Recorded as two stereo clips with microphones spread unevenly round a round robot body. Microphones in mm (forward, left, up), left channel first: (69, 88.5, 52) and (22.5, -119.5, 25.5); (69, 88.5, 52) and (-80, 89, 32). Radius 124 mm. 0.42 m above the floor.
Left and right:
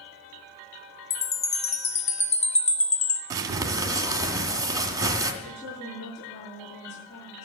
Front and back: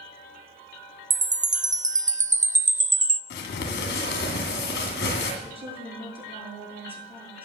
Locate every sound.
1.1 s a chime: 145° left, 0.6 m
3.3 s crumpling: 30° right, 2 m
5.4 s a woman speaking: 125° left, 7.5 m